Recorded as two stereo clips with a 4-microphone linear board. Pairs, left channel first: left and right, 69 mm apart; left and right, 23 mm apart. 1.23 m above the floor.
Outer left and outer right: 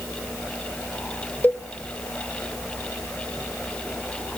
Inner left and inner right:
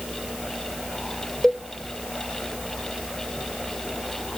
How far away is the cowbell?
About 0.8 m.